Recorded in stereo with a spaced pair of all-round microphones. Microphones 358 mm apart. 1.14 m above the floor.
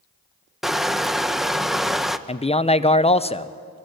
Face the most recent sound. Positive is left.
turn(degrees=15)  # may be behind; listen again after turning